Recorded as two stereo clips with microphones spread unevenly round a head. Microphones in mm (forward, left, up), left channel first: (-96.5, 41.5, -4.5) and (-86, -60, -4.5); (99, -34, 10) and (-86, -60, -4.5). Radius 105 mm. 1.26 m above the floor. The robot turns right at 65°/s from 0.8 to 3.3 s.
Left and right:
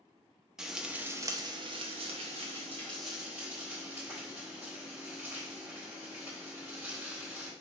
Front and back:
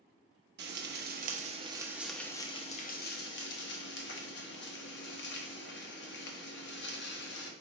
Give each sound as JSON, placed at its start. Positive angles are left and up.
{"t": 0.6, "sound": "frying", "azimuth_deg": -170, "distance_m": 0.9}